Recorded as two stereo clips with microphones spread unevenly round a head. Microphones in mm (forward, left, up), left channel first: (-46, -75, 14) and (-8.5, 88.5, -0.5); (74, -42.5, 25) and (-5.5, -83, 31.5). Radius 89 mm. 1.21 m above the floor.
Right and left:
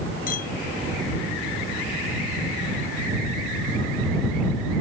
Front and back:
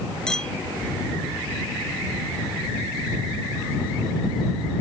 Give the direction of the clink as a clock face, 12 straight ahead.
2 o'clock.